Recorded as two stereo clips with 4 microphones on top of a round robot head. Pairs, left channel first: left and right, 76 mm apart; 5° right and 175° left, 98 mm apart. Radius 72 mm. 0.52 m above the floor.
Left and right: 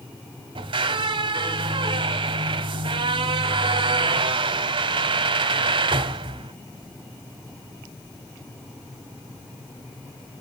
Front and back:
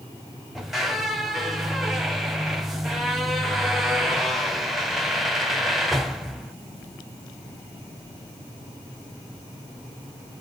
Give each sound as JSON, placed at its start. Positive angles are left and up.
{"t": 0.6, "sound": "a squeak", "azimuth_deg": -95, "distance_m": 0.7}